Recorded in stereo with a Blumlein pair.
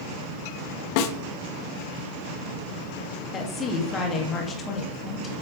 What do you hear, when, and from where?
1.0 s a snare drum: 45° left, 1.0 m
3.3 s a woman speaking: 20° left, 2 m